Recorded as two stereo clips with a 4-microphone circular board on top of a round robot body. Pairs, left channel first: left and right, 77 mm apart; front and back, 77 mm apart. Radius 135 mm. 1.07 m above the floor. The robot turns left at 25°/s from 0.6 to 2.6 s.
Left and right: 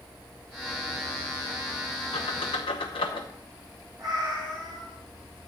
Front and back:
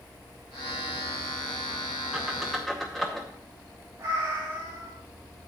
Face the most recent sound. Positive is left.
turn(degrees=-120)